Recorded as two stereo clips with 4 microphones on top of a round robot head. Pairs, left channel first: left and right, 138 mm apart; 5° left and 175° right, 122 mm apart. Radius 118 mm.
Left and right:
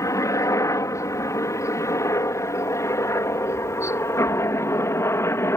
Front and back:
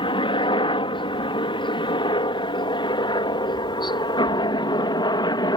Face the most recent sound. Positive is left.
turn(degrees=30)